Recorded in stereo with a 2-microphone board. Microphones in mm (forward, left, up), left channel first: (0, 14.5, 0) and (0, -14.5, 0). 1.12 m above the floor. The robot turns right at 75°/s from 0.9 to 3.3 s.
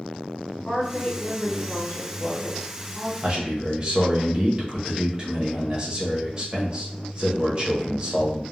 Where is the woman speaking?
25° left, 1.4 m; by 3.1 s 170° right, 1.4 m.